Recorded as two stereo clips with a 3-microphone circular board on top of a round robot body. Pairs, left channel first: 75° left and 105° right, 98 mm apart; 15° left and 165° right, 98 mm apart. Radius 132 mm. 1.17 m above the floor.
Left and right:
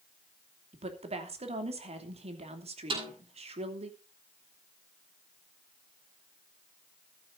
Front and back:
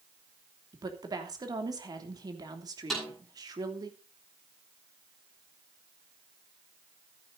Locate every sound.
0.7 s a woman speaking: 110° right, 2.5 m
2.9 s a snare drum: 75° right, 10 m